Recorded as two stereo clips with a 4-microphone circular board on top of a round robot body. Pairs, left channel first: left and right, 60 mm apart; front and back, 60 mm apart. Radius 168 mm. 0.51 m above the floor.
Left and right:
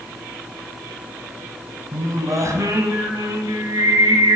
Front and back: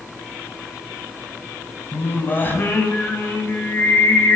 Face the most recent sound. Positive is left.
turn(degrees=-60)